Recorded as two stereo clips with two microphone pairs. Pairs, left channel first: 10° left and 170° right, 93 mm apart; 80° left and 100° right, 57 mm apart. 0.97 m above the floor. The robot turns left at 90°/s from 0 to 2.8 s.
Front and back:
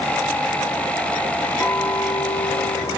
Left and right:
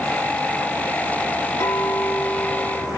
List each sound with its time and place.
1.6 s a clink: 70° left, 3 m; by 3.0 s 35° right, 3 m